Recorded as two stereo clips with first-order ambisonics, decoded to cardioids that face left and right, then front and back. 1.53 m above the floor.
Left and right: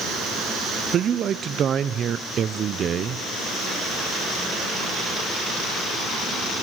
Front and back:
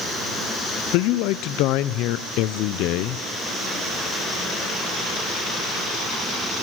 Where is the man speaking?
30° right, 0.6 m.